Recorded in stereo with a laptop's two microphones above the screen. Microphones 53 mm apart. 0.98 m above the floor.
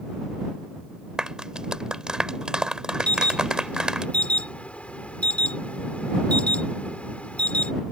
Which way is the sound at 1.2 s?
15° right (ahead or behind).